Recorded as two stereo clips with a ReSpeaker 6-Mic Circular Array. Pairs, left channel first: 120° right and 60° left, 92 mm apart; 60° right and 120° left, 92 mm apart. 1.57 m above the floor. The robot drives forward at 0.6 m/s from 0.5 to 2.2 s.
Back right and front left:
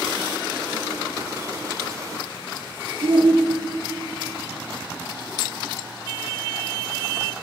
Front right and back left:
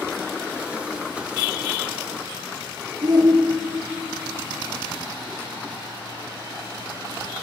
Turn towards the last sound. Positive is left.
turn(degrees=80)